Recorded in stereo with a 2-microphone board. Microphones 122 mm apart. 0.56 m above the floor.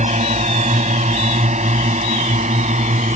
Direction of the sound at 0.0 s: 70° right (ahead or behind).